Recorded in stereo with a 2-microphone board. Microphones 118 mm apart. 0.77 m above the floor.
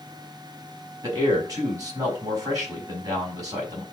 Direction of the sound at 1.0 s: 30° right (ahead or behind).